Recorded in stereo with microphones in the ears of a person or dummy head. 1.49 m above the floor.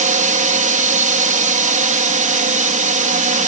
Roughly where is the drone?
Right.